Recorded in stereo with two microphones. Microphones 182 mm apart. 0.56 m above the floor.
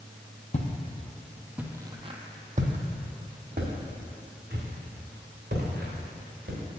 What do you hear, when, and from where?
0.5 s footsteps: 40° left (ahead or behind), 0.8 m; by 6.6 s 75° right (ahead or behind), 3 m